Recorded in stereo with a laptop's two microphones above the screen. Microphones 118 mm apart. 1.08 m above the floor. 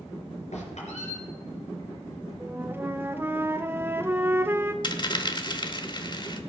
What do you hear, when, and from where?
0.5 s a squeak: 75° left (ahead or behind), 4 m
2.4 s a flute: 20° right (ahead or behind), 0.6 m
4.8 s a dropped coin: 40° left (ahead or behind), 0.9 m